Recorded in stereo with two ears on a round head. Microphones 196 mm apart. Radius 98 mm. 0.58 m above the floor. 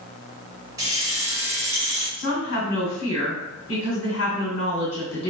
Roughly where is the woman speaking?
Left.